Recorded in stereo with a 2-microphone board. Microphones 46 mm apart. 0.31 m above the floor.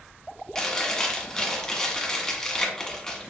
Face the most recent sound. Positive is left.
turn(degrees=15)  # may be behind; listen again after turning